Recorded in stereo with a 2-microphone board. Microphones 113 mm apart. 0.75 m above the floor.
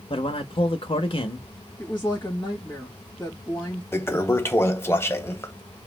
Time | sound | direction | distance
0.1 | a man speaking | 50° left (ahead or behind) | 0.6 m
1.8 | a woman speaking | 25° left (ahead or behind) | 1.0 m
3.9 | a toilet flushing | 20° left (ahead or behind) | 0.5 m